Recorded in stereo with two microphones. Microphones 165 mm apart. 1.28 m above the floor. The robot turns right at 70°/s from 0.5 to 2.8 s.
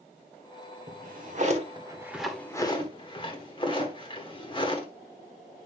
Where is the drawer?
55° right (ahead or behind), 1.4 m; by 4.9 s 30° left (ahead or behind), 1.4 m.